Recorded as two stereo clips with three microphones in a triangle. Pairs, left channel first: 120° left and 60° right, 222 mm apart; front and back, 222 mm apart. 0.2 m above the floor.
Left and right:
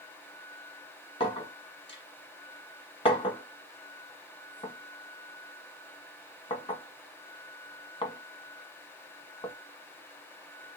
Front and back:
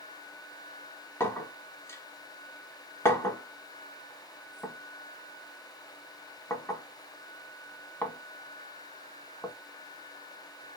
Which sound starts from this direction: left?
A clink, at 1.2 s.